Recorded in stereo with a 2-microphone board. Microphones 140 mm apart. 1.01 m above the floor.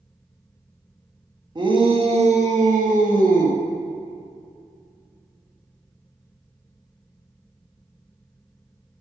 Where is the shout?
30° right (ahead or behind), 1.3 m; by 3.6 s 75° right (ahead or behind), 2.0 m.